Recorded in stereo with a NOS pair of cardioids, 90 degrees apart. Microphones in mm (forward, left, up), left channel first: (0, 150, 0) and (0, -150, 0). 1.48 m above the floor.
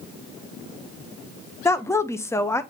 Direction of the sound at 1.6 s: 10° left.